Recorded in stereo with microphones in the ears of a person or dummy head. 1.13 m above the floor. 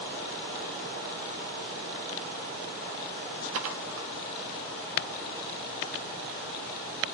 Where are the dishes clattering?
80° right, 2.0 m.